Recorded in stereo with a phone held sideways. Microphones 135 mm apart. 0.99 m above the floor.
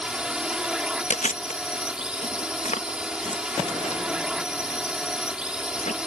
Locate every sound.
0.0 s a drone: 5° right (ahead or behind)
1.1 s chewing: 60° left (ahead or behind)